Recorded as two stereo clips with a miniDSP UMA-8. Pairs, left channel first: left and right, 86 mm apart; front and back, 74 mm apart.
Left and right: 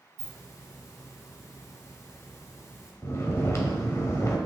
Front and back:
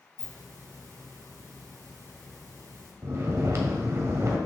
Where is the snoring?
140° left, 1.1 m.